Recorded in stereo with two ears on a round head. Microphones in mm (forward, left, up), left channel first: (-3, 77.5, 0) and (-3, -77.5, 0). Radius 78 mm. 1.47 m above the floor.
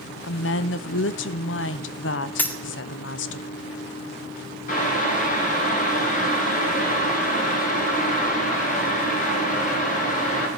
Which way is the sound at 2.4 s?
10° left (ahead or behind).